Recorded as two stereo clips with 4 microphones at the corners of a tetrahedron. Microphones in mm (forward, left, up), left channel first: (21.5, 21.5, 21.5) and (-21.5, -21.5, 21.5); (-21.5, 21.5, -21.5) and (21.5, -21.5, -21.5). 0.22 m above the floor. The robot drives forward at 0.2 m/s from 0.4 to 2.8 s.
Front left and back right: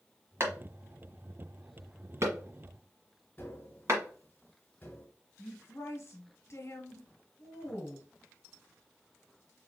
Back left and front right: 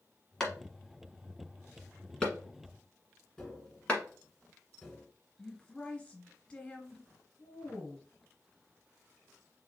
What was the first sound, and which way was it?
A clap, 145° right.